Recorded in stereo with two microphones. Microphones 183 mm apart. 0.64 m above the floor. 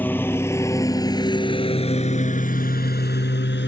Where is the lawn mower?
10° left (ahead or behind); by 3.7 s 80° left.